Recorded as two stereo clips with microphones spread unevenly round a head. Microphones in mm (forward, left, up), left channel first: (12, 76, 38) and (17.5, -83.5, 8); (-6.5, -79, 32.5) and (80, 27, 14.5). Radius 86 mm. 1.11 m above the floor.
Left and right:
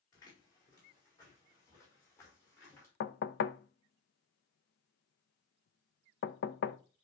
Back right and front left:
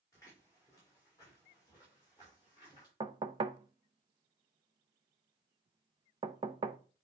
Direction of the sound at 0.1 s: 160° left.